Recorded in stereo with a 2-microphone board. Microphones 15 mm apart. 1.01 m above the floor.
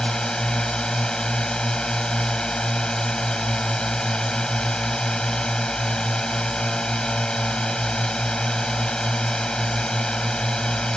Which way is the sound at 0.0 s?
55° left (ahead or behind).